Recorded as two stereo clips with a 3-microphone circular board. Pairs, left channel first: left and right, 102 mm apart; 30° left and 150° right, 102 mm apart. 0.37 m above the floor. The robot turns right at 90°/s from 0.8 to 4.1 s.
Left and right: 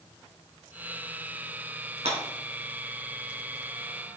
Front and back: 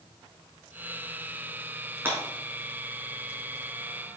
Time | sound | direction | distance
2.0 | breaking glass | 85° right | 3 m